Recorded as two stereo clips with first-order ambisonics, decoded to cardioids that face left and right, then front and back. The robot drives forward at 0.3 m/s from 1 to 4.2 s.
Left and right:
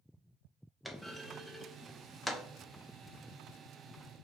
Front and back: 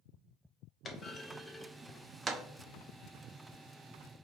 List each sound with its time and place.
0.8 s a clunk: 5° left, 0.6 m; by 2.4 s 175° left, 0.6 m